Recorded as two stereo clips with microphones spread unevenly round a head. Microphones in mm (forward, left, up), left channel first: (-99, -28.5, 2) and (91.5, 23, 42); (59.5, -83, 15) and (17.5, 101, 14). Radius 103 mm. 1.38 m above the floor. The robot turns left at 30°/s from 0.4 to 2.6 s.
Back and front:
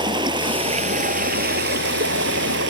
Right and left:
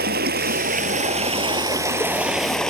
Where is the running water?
75° left; by 2.7 s 10° left.